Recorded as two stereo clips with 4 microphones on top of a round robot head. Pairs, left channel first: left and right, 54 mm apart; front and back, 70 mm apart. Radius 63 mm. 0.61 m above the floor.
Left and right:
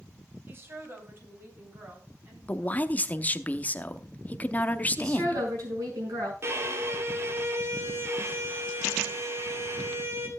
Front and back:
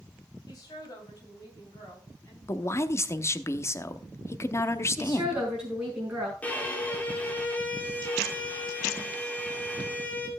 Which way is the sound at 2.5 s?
40° left.